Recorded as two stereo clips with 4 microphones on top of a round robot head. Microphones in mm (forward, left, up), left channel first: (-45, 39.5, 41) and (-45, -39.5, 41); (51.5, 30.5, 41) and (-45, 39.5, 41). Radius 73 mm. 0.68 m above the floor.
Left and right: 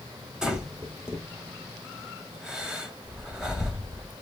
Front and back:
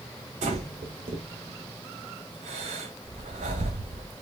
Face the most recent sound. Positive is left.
turn(degrees=-175)